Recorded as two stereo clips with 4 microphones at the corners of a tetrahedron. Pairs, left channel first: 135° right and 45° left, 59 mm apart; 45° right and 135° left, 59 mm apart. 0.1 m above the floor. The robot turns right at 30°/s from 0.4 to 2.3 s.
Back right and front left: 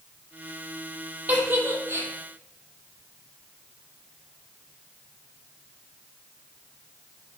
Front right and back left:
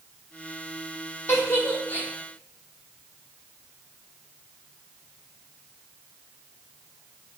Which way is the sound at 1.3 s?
15° right.